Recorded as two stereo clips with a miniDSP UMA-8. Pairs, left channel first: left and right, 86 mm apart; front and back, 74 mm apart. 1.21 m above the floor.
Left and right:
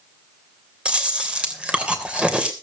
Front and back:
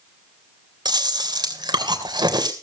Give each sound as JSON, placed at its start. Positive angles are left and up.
{"t": 0.8, "sound": "chewing", "azimuth_deg": -170, "distance_m": 3.0}